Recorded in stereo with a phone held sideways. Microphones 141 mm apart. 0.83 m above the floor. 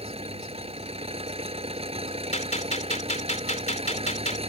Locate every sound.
0.0 s an engine running: 45° right (ahead or behind)
2.3 s a gunshot: 55° left (ahead or behind)